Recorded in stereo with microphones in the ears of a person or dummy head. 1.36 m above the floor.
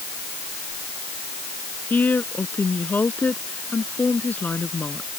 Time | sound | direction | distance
1.9 | a woman speaking | 10° left (ahead or behind) | ?